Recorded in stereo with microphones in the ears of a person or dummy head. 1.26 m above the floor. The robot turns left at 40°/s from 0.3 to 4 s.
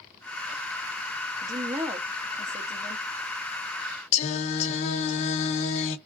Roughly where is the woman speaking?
Behind.